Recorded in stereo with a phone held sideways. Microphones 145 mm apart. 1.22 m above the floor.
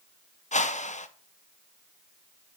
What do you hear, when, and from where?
0.5 s a whoosh: 55° left (ahead or behind), 0.7 m